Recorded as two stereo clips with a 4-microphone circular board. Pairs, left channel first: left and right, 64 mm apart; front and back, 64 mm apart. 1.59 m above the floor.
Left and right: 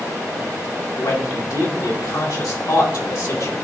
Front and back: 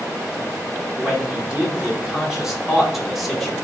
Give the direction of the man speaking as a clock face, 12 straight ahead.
9 o'clock.